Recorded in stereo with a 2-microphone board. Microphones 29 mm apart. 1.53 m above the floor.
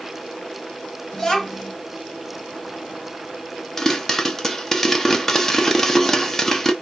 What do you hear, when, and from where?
1.1 s a child speaking: 15° left (ahead or behind), 2.5 m
3.8 s a pop: 10° left (ahead or behind), 1.1 m